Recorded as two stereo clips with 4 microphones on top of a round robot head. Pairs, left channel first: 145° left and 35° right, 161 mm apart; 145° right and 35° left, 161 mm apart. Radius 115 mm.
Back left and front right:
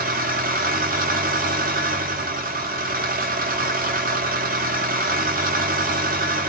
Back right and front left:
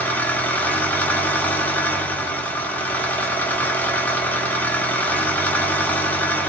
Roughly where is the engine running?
Ahead right.